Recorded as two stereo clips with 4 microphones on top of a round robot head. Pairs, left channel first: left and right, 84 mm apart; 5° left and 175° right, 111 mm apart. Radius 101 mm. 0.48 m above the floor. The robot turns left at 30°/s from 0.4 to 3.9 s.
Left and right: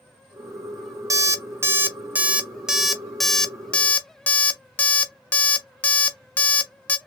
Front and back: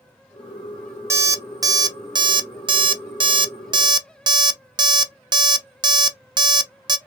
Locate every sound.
1.1 s an alarm clock: 120° right, 0.6 m; by 7.0 s 155° left, 0.6 m